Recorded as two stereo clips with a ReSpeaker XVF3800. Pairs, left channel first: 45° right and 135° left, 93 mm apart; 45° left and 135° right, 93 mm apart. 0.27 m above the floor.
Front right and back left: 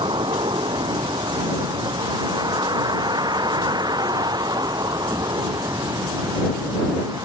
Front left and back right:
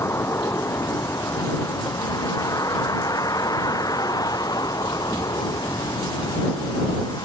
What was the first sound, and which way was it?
A vehicle, 105° left.